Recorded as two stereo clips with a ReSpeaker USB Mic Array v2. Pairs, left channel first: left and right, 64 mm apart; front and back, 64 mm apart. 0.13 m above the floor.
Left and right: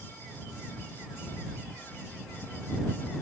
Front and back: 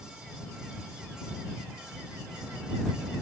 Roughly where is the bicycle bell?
No bicycle bell in this recording.